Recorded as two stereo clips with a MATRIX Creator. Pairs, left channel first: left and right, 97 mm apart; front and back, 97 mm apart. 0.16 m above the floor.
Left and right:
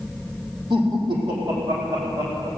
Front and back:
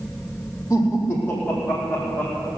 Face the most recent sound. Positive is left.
turn(degrees=-70)